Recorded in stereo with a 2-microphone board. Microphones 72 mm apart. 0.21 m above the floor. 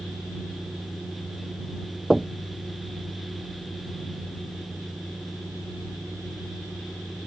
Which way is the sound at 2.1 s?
5° right (ahead or behind).